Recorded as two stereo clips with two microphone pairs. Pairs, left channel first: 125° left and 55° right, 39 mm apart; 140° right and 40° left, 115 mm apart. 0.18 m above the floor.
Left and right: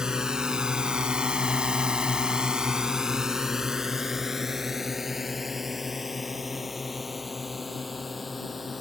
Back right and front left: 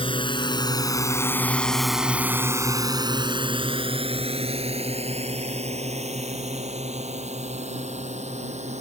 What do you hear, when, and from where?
0.0 s a drone: 125° right; by 8.8 s 35° left